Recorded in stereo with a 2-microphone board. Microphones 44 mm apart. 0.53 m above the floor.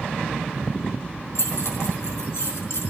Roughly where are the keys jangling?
Left.